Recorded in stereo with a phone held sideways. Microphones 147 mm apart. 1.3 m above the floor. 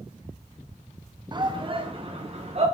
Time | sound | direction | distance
1.3 | a shout | 30° right (ahead or behind) | 0.9 m